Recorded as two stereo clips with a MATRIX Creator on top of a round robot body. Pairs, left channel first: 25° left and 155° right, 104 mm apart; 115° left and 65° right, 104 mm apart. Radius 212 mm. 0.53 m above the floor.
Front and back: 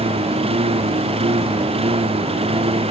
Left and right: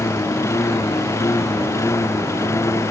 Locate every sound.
0.0 s a lawn mower: 175° left